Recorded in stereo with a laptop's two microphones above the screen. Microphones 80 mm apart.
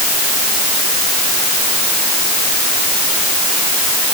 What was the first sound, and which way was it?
Only background noise.